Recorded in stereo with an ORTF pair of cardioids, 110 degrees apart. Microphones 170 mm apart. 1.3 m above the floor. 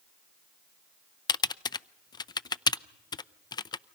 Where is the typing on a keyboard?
25° left, 0.5 m.